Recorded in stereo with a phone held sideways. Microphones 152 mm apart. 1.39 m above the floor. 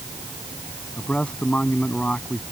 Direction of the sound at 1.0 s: 5° left (ahead or behind).